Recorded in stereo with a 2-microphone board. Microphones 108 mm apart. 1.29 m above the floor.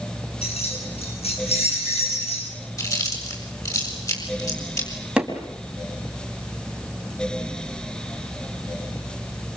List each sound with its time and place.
0.4 s keys jangling: 80° left, 8.5 m
2.8 s chewing: 35° left (ahead or behind), 7 m
5.2 s hammering: 10° right (ahead or behind), 4 m